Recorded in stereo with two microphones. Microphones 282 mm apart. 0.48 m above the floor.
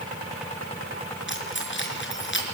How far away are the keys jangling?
About 5 m.